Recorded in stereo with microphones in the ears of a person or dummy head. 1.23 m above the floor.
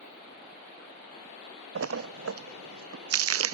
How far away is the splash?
About 0.5 m.